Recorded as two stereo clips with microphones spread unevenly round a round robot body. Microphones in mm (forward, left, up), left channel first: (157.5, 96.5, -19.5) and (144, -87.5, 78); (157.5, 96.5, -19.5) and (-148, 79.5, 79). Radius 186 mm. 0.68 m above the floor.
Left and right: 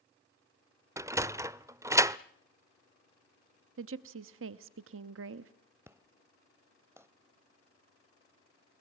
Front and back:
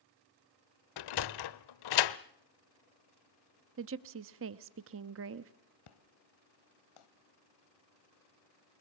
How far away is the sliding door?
About 0.6 m.